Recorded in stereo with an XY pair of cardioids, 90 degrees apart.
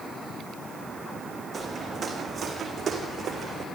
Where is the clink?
I don't hear a clink.